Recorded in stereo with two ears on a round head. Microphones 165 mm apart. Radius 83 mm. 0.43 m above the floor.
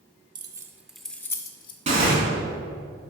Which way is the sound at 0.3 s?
25° right (ahead or behind).